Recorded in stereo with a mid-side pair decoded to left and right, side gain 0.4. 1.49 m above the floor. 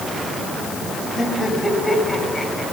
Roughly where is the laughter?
Ahead left.